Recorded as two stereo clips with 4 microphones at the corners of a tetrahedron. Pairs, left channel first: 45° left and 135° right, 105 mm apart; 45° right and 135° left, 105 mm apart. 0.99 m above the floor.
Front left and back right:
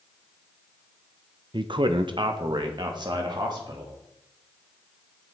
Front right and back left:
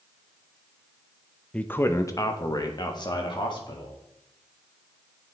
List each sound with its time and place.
1.5 s a man speaking: 120° right, 0.5 m; by 4.0 s 90° right, 2 m